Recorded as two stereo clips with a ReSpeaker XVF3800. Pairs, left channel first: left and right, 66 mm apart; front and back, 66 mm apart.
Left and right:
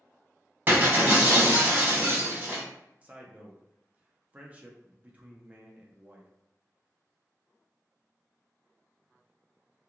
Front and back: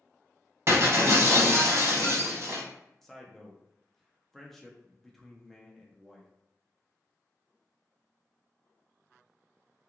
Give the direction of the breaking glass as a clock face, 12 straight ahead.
5 o'clock.